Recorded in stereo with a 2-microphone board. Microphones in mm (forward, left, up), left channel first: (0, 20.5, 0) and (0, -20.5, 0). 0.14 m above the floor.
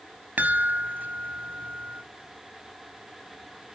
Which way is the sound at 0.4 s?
50° right (ahead or behind).